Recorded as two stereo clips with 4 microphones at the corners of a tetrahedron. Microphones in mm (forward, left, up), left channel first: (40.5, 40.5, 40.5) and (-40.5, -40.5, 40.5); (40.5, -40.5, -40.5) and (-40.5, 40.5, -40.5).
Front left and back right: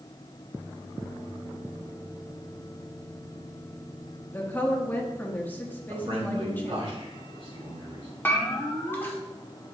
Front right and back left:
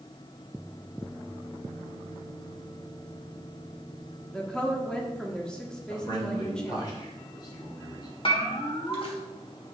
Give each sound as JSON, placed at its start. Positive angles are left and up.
{"t": 4.3, "sound": "a woman speaking", "azimuth_deg": 20, "distance_m": 1.1}
{"t": 5.9, "sound": "a man speaking", "azimuth_deg": -95, "distance_m": 2.5}
{"t": 8.2, "sound": "a bell", "azimuth_deg": -25, "distance_m": 1.3}